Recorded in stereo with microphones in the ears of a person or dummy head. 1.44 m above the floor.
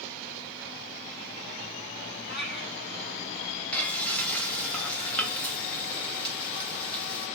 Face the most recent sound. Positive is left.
turn(degrees=5)  # may be behind; listen again after turning